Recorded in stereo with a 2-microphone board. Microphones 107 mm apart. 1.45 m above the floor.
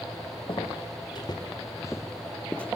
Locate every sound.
0.5 s footsteps: 50° left (ahead or behind), 2.5 m; by 2.7 s 10° left (ahead or behind), 2 m